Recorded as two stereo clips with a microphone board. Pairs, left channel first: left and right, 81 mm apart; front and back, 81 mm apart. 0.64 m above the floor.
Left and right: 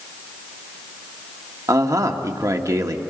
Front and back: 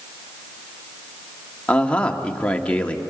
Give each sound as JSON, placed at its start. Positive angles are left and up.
{"t": 1.7, "sound": "a man speaking", "azimuth_deg": -70, "distance_m": 1.5}